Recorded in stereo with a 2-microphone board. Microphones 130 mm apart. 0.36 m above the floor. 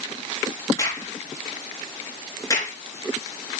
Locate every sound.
0.8 s a crack: 25° left (ahead or behind), 3.5 m